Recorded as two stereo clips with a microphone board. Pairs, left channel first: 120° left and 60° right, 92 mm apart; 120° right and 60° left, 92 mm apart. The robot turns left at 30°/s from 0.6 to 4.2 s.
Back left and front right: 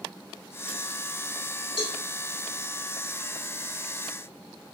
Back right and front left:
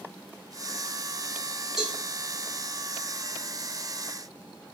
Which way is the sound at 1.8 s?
145° left.